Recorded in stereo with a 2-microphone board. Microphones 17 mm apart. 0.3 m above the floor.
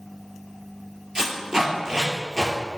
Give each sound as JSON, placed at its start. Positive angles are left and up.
{"t": 1.1, "sound": "tape being pulled", "side_deg": -45, "distance_m": 2.0}